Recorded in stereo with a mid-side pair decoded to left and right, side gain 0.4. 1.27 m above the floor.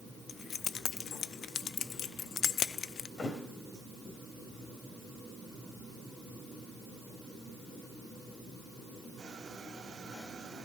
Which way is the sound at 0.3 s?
60° left.